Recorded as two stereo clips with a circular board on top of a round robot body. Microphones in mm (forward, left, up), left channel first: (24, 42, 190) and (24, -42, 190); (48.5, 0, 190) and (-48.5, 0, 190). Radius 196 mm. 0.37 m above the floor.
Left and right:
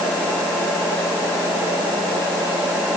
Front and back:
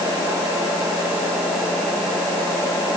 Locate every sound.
Only background noise.